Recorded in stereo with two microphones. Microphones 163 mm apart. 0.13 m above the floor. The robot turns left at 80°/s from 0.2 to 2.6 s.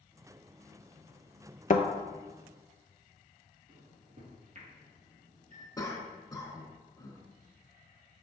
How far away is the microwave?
About 2.5 m.